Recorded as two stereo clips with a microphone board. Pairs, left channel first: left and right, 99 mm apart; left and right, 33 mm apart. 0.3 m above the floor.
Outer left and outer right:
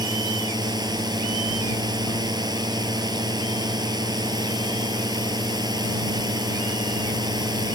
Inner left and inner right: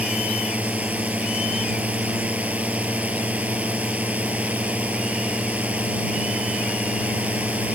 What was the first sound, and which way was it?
A drone, 40° right (ahead or behind).